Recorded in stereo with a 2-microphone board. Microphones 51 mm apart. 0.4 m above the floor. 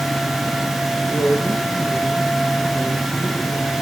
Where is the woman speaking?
40° left (ahead or behind), 9 m.